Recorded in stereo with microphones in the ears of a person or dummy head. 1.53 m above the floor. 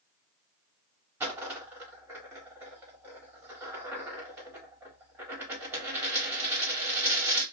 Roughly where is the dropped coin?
Centre.